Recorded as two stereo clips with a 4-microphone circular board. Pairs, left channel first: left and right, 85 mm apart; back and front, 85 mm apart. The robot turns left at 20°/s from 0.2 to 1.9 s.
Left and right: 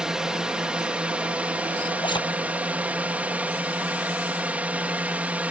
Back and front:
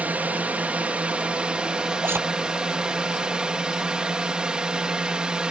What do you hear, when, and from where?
0.0 s a drone: 25° right; by 5.5 s 55° right
2.0 s a zipper: 65° left